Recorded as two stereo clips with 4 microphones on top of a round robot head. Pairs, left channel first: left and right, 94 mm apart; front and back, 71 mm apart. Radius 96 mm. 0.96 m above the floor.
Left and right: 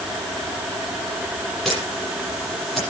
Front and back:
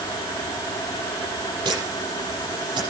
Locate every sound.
1.6 s a camera shutter: 175° left, 8 m